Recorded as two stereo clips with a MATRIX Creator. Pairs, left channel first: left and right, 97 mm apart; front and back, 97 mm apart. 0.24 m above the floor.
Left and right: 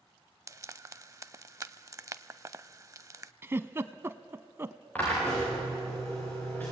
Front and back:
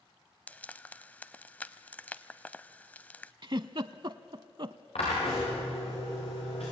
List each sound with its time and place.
0.5 s frying: 60° right, 0.5 m
3.4 s a giggle: 150° right, 0.6 m
5.0 s a drill: 15° left, 9.5 m